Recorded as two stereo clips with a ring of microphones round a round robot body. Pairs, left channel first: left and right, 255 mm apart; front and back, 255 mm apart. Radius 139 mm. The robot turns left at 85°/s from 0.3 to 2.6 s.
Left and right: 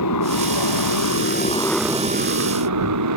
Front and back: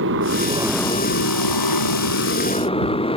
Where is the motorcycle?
130° left; by 3.2 s 70° right.